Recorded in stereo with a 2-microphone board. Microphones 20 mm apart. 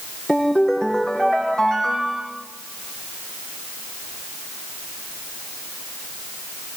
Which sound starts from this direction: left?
A ringtone, at 0.3 s.